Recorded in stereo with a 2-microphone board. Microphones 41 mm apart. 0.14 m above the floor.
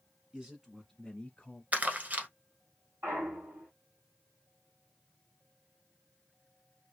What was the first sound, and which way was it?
A man speaking, 20° right (ahead or behind).